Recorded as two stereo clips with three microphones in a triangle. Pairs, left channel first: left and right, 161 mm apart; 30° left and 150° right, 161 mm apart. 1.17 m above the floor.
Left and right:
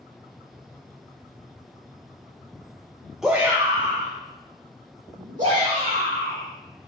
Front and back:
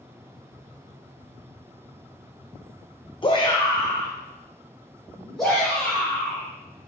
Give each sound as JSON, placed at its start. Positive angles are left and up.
{"t": 3.2, "sound": "a shout", "azimuth_deg": -5, "distance_m": 0.7}